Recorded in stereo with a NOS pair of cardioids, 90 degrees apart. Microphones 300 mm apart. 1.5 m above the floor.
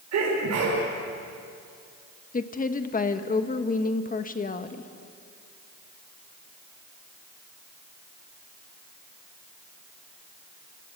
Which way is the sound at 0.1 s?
60° right.